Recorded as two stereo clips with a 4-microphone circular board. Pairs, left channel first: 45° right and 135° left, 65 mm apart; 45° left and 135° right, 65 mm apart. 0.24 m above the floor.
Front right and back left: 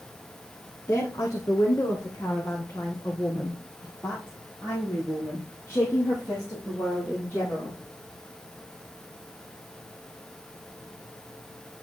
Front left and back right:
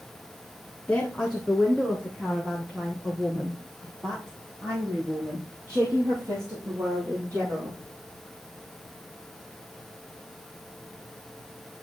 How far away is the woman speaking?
About 2.5 m.